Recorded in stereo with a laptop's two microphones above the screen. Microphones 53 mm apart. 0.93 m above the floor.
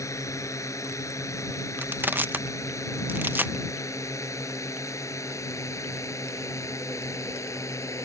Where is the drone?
85° left; by 8.1 s 75° left (ahead or behind).